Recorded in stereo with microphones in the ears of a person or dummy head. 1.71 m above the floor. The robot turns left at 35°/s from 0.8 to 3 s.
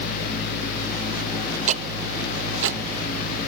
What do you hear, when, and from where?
1.7 s ticking: 45° right (ahead or behind), 0.9 m; by 2.8 s 85° right, 0.9 m